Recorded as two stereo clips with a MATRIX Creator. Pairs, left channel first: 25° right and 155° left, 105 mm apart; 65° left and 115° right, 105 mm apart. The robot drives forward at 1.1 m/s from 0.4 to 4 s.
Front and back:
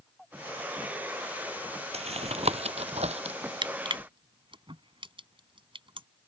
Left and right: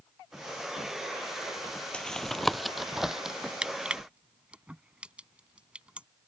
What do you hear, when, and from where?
1.9 s tapping: 150° left; by 3.4 s 165° left
3.6 s crushing: 170° left